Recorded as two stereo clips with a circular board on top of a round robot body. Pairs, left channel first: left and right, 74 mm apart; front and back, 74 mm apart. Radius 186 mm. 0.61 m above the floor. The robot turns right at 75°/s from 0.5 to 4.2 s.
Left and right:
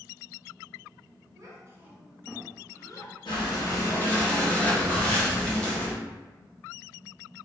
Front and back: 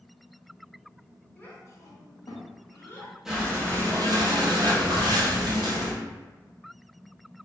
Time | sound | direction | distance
1.4 | a child speaking | 65° right | 1.1 m
3.2 | breathing | 95° left | 1.2 m